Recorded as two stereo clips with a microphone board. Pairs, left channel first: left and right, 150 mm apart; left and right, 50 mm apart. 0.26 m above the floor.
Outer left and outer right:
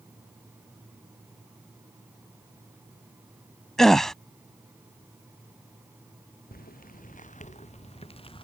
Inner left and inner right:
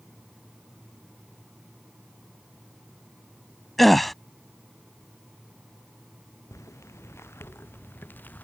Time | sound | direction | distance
3.8 | a gasp | centre (ahead or behind) | ?
6.5 | footsteps | 70° left (ahead or behind) | ?